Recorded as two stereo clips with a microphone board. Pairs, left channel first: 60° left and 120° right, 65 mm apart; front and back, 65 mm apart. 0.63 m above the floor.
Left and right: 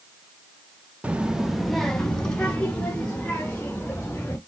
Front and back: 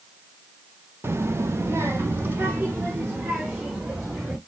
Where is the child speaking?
175° right, 0.6 m; by 4.4 s 125° left, 2.5 m.